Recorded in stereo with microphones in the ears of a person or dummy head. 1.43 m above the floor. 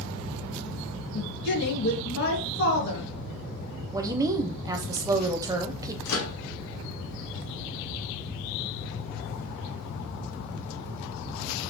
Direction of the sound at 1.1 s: 60° left (ahead or behind).